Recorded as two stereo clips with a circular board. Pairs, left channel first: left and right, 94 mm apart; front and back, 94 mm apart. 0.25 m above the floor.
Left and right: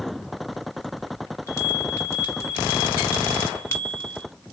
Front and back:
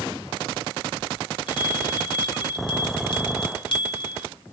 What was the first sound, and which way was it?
A bell, 30° left.